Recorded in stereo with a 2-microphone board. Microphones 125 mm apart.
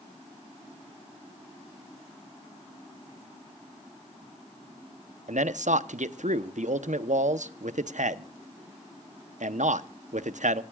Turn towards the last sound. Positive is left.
turn(degrees=-75)  # may be behind; listen again after turning